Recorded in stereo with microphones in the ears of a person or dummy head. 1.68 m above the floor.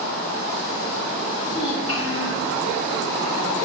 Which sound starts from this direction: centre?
A child speaking, at 1.5 s.